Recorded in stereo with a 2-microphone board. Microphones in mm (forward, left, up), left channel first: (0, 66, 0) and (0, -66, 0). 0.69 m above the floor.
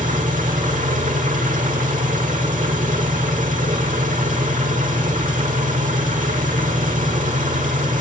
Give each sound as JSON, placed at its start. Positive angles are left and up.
{"t": 0.0, "sound": "an engine running", "side_deg": -80, "distance_m": 1.2}